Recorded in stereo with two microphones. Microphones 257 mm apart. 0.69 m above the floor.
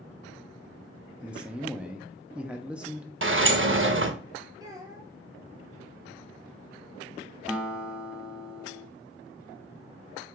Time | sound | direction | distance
1.2 | a man speaking | 5° right (ahead or behind) | 0.5 m
3.2 | a sliding door | 50° right (ahead or behind) | 0.5 m
4.6 | a child speaking | 15° right (ahead or behind) | 1.1 m
7.5 | a guitar | 5° right (ahead or behind) | 0.7 m